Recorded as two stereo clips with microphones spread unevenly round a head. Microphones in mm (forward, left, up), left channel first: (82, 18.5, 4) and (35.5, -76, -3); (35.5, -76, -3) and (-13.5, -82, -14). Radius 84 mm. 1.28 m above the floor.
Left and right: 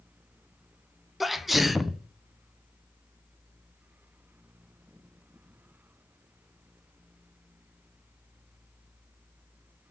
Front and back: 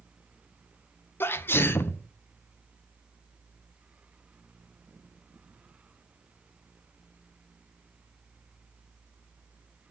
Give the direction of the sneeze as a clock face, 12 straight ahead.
1 o'clock.